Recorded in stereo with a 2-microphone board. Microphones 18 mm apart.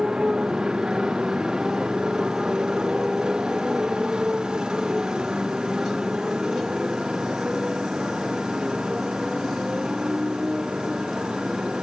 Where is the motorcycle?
40° right (ahead or behind); by 11.8 s 50° right (ahead or behind).